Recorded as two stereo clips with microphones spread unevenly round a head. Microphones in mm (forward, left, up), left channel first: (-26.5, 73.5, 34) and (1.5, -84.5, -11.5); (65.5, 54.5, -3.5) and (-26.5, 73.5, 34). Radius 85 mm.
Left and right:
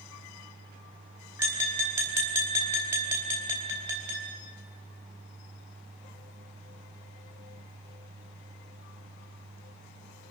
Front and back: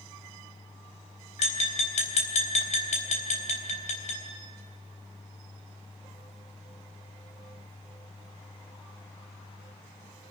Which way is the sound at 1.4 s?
Straight ahead.